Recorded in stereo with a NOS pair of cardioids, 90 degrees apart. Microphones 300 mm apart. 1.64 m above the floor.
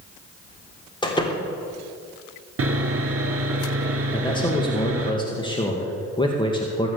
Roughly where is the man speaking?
Ahead.